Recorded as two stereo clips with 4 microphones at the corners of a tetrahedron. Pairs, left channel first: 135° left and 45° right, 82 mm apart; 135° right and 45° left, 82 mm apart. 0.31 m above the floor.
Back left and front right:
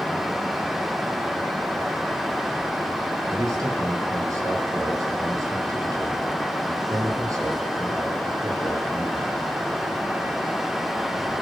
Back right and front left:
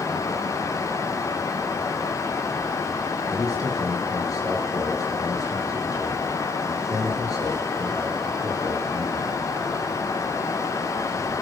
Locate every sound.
3.3 s a man speaking: 95° right, 6 m